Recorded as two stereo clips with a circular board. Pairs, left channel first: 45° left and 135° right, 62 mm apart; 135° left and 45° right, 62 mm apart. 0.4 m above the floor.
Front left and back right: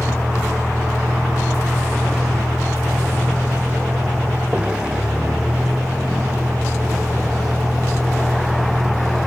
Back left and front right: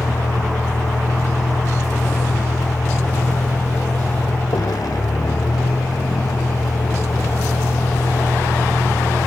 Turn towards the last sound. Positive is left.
turn(degrees=150)